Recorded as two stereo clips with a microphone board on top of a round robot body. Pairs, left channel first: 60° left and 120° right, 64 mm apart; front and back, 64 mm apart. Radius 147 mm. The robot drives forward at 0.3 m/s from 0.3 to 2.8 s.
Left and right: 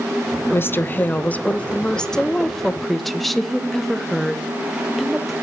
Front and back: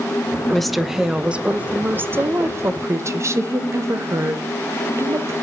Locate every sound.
0.5 s a woman speaking: 80° left, 0.7 m; by 5.3 s 145° left, 1.0 m